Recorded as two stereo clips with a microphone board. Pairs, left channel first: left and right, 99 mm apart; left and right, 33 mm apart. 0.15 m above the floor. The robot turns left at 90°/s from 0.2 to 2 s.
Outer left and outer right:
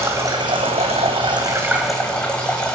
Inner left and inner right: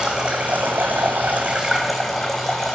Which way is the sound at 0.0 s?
25° right.